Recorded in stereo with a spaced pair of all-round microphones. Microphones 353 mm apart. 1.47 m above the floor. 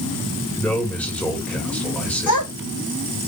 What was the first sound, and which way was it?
A man speaking, 5° left (ahead or behind).